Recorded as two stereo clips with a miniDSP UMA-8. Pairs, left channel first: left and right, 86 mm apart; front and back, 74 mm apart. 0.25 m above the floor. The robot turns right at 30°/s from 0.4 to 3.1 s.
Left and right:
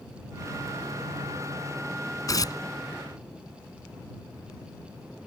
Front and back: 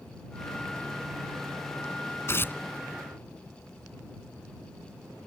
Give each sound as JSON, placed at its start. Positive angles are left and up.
{"t": 2.3, "sound": "tearing paper", "azimuth_deg": 50}